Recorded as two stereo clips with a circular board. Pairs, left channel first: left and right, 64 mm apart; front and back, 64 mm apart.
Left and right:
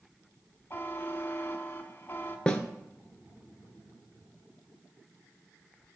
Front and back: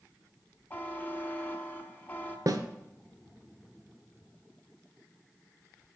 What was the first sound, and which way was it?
A buzzer, 45° left.